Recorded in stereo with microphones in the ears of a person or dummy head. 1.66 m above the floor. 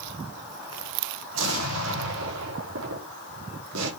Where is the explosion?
75° right (ahead or behind), 3.5 m.